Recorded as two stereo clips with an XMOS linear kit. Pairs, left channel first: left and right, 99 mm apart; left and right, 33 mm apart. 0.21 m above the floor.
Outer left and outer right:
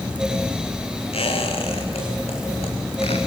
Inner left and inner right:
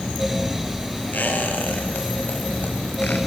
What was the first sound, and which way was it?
A squeak, 80° left.